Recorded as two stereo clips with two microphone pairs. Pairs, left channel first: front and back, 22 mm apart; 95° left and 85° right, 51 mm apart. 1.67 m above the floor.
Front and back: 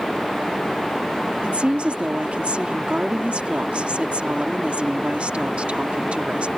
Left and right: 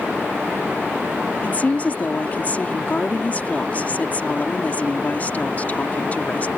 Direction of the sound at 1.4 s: 155° left.